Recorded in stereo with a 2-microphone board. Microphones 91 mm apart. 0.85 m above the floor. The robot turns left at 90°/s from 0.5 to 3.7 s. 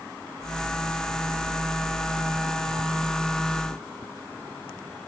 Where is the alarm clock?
I don't hear an alarm clock.